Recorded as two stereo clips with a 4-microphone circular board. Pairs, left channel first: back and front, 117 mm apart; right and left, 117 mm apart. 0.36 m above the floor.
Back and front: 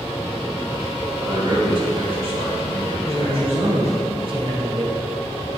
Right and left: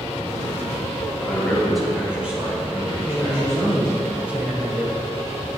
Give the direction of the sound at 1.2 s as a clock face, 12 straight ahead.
1 o'clock.